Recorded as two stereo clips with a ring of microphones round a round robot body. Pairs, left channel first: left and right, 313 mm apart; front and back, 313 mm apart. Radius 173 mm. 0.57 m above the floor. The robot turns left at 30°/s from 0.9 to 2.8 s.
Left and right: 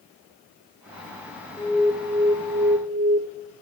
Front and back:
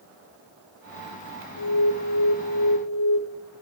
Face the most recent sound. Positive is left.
turn(degrees=-25)